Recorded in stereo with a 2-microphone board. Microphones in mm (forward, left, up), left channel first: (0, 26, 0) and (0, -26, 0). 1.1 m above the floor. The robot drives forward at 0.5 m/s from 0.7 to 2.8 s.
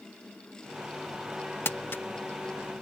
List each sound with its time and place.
1.6 s crumpling: 50° left (ahead or behind); by 2.0 s 45° left (ahead or behind)